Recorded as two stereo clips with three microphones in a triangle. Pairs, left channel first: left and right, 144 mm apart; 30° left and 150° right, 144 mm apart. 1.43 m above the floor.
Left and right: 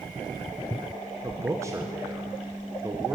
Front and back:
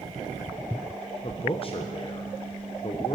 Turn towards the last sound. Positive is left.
turn(degrees=-20)